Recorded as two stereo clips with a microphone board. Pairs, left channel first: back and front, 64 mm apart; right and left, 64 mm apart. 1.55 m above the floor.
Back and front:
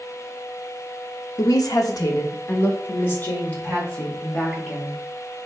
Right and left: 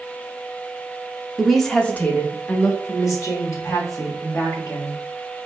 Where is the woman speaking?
175° left, 0.7 m; by 5.0 s 105° right, 2.5 m.